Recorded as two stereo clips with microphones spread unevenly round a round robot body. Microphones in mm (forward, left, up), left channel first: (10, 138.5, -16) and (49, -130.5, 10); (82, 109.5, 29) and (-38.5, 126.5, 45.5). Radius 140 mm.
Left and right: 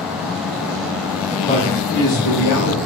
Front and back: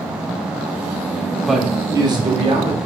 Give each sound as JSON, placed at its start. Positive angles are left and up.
{"t": 1.4, "sound": "a man speaking", "azimuth_deg": 55, "distance_m": 0.6}